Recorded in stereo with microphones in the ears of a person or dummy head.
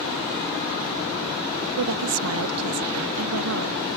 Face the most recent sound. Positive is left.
turn(degrees=-80)